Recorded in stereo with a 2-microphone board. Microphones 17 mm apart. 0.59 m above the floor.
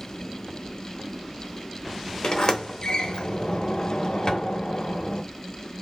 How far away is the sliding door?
About 1.0 m.